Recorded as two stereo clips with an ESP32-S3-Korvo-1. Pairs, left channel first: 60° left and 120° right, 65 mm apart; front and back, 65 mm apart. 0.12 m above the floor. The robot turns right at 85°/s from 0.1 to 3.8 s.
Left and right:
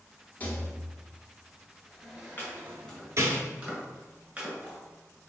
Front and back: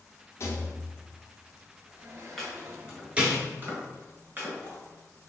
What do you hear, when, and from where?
0.4 s a rattle: 10° left, 0.9 m; by 3.4 s 100° right, 0.9 m
2.4 s chopping: 75° left, 1.7 m; by 5.3 s 165° right, 1.7 m